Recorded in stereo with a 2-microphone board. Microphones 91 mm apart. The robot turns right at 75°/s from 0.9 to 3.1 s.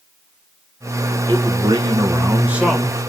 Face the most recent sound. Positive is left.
turn(degrees=25)